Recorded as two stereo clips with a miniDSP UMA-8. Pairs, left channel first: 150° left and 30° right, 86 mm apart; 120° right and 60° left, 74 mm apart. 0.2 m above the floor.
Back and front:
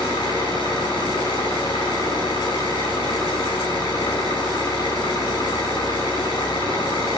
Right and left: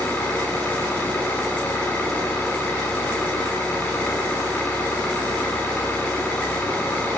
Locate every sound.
0.0 s an engine running: 170° left, 6 m